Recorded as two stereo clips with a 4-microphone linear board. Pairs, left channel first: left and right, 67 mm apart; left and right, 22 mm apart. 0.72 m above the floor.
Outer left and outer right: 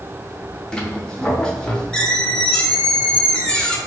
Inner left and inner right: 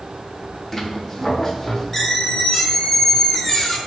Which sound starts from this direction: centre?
A squeak, at 0.7 s.